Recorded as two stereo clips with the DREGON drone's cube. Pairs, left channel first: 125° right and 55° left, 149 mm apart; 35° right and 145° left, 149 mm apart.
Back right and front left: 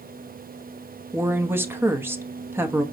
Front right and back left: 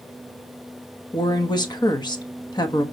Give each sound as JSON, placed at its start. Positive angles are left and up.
{"t": 1.1, "sound": "a woman speaking", "azimuth_deg": -5, "distance_m": 1.0}